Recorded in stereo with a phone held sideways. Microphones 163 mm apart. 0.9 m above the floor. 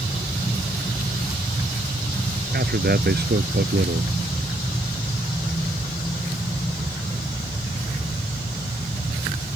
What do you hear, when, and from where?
2.5 s a man speaking: 80° right